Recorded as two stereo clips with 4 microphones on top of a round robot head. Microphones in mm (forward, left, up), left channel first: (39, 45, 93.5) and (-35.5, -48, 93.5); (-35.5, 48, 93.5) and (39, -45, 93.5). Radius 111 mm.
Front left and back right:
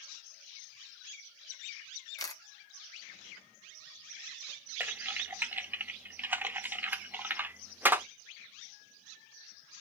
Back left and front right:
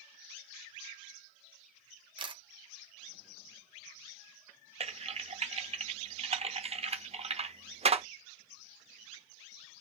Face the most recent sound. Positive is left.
turn(degrees=-55)